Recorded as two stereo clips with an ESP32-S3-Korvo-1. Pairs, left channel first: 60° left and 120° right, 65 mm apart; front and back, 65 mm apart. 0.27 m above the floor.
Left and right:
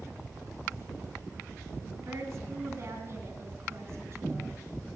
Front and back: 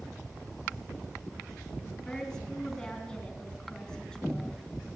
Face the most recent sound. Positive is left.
turn(degrees=-80)